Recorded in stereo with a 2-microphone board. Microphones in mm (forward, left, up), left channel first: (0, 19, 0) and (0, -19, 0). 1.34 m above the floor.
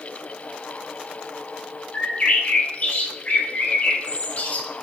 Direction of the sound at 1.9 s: 45° left (ahead or behind).